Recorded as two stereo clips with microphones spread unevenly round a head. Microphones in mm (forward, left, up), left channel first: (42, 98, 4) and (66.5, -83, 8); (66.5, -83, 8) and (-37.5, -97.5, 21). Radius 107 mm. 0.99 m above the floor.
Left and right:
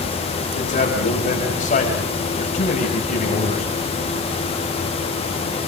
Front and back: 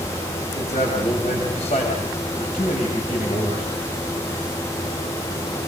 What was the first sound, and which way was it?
A man speaking, 50° left.